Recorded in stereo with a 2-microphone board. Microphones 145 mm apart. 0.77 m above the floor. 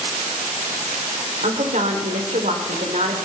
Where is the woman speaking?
60° right (ahead or behind), 3.5 m.